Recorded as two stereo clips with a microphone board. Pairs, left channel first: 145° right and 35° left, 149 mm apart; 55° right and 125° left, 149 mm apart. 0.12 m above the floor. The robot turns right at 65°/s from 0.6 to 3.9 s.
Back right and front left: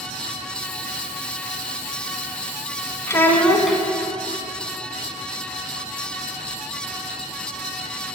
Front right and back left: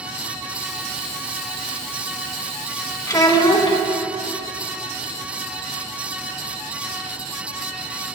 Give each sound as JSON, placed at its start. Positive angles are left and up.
{"t": 3.1, "sound": "a child speaking", "azimuth_deg": -95, "distance_m": 0.7}